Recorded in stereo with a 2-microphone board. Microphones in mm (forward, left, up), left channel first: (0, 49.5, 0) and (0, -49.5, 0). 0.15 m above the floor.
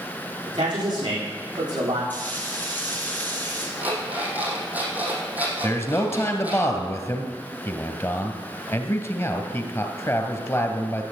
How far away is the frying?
About 4 m.